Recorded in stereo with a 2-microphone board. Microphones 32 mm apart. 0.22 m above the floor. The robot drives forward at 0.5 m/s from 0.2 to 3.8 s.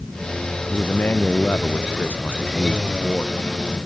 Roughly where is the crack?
I don't hear a crack.